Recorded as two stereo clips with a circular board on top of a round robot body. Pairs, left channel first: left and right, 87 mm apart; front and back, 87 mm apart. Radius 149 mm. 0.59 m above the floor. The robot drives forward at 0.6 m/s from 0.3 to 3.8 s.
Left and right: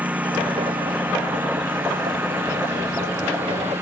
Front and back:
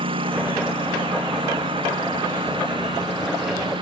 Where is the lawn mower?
165° right; by 3.8 s 155° right.